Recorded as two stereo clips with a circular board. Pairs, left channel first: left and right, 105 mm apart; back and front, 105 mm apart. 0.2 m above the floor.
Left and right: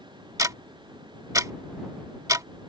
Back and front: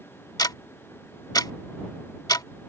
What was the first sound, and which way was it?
Ticking, 140° right.